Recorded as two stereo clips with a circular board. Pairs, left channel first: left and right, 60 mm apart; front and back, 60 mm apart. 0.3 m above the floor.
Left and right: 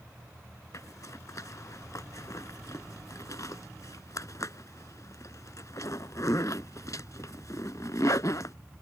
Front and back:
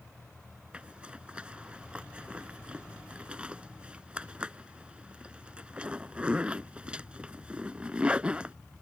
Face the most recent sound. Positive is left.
turn(degrees=110)